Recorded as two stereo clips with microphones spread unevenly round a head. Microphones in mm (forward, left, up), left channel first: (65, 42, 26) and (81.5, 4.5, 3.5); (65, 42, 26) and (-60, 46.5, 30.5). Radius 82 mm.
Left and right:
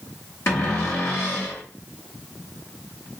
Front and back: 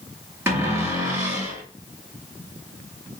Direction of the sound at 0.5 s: 105° left.